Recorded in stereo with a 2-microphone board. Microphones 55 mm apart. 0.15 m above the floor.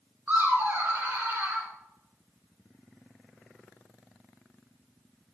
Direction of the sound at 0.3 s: 30° right (ahead or behind).